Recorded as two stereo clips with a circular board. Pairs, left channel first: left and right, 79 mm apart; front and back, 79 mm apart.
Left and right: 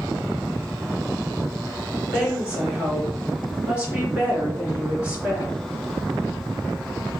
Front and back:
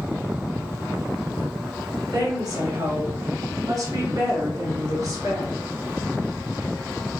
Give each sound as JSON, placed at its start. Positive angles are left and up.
{"t": 2.1, "sound": "a woman speaking", "azimuth_deg": -160, "distance_m": 2.0}